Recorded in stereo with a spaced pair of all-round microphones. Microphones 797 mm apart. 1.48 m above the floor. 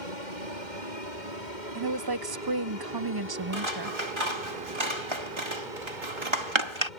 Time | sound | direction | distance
0.0 | an aircraft | 65° left (ahead or behind) | ?
1.8 | a woman speaking | 30° right (ahead or behind) | ?
3.5 | scissors | 35° right (ahead or behind) | ?